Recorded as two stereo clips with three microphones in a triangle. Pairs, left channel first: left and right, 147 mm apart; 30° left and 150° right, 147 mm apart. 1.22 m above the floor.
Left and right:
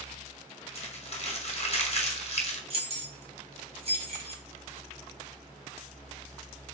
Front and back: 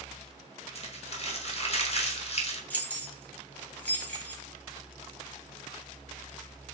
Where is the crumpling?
60° left, 0.6 m.